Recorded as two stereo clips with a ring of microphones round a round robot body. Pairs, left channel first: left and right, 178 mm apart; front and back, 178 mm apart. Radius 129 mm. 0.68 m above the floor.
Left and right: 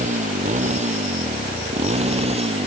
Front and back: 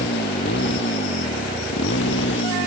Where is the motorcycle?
45° right; by 2.7 s 35° right.